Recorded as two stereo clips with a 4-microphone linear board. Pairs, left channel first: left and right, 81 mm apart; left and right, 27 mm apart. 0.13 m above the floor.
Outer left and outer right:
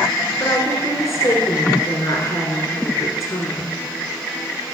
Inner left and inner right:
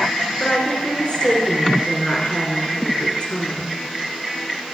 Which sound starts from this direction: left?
A woman speaking, at 0.4 s.